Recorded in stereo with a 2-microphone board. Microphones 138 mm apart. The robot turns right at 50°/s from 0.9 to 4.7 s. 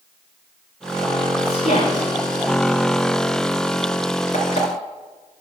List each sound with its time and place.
1.4 s a woman speaking: 45° left (ahead or behind), 4.5 m; by 2.1 s 75° left (ahead or behind), 4.5 m
4.3 s an alarm clock: 55° left (ahead or behind), 3.5 m; by 4.7 s 40° left (ahead or behind), 3.5 m